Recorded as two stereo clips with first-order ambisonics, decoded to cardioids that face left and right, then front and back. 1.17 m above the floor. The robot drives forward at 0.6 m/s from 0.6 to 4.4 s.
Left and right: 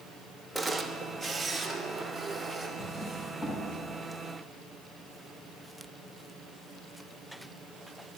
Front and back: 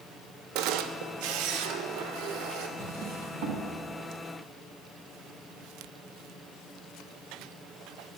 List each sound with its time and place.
0.6 s a camera shutter: straight behind, 0.7 m
2.8 s a drawer: 155° left, 3.5 m; by 3.6 s 160° left, 3.5 m